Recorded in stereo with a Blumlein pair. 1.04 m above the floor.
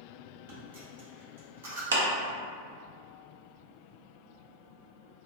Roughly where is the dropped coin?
Ahead right.